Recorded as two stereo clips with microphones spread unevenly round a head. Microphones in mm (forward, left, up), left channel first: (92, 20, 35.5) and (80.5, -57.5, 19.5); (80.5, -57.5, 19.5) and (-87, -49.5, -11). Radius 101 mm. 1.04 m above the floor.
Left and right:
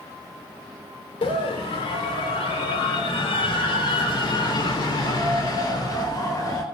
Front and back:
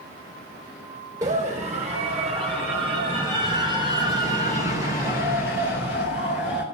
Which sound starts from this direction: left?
A scream, at 1.2 s.